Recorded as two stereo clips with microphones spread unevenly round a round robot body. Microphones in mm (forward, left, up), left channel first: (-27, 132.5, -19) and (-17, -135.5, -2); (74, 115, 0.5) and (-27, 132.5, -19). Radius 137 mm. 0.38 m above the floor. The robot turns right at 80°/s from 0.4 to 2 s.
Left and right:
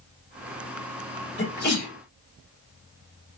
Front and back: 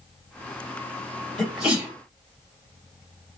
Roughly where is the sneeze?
Left.